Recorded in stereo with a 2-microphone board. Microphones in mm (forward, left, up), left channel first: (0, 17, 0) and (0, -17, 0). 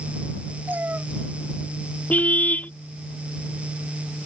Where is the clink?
I don't hear a clink.